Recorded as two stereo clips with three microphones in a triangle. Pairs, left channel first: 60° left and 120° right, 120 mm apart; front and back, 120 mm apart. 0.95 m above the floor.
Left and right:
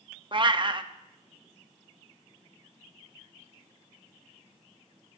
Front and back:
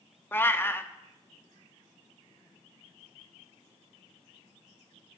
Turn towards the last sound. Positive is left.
turn(degrees=-70)